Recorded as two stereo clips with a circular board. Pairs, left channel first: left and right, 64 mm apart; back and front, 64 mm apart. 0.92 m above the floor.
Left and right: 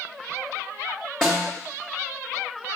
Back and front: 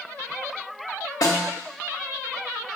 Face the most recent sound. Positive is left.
turn(degrees=175)